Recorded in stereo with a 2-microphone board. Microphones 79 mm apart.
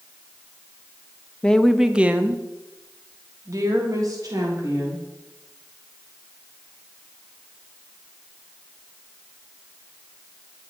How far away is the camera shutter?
No camera shutter in this recording.